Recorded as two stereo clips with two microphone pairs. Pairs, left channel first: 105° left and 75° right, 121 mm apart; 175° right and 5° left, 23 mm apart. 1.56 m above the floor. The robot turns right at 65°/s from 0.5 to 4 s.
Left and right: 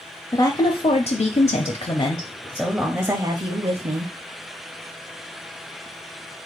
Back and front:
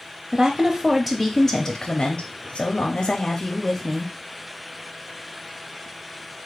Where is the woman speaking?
60° left, 0.6 m; by 4.1 s 75° right, 0.6 m.